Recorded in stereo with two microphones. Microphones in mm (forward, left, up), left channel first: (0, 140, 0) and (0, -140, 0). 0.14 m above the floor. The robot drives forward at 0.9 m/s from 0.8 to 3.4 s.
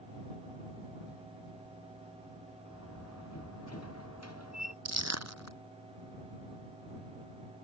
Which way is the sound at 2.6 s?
70° left (ahead or behind).